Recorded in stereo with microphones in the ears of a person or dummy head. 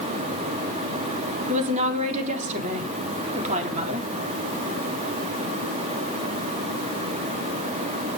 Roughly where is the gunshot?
No gunshot in this recording.